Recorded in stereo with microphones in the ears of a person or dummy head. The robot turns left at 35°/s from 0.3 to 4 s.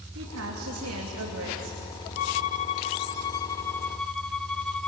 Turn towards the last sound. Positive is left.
turn(degrees=10)